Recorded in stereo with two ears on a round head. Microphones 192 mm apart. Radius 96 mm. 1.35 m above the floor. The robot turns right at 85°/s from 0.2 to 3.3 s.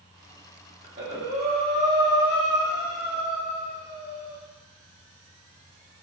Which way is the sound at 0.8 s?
45° right.